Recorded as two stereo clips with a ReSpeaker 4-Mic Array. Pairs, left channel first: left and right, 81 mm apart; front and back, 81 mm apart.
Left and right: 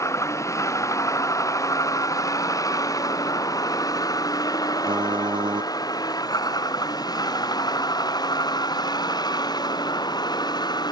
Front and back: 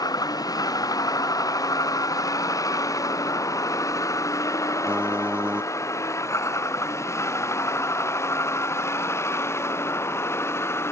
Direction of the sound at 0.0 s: 40° left.